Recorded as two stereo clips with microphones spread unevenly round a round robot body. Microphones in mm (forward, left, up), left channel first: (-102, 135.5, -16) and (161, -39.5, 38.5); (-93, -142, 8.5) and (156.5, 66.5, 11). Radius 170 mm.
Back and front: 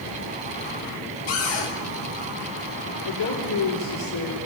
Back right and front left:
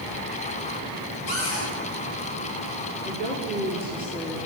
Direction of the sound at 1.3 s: 170° left.